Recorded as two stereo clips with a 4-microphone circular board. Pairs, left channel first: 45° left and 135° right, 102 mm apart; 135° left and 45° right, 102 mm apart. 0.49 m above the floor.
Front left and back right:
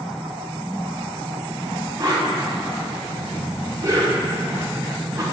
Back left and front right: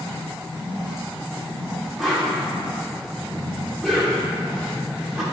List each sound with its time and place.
2.0 s a whoosh: 130° right, 1.4 m